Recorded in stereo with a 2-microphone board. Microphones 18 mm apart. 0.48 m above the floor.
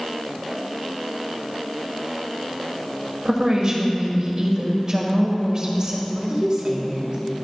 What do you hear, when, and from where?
3.2 s a woman speaking: 40° right (ahead or behind), 1.6 m
6.1 s a woman speaking: 40° right (ahead or behind), 1.7 m